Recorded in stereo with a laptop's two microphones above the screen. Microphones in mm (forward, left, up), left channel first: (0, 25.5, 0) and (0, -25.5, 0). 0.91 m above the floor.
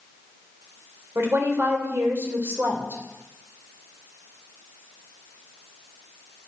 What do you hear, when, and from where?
1.1 s a woman speaking: 55° right (ahead or behind), 2.5 m